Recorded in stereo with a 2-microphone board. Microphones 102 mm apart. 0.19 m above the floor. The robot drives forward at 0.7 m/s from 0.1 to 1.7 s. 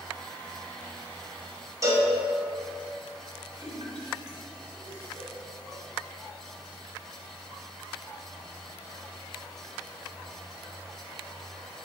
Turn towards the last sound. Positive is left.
turn(degrees=-40)  # may be behind; listen again after turning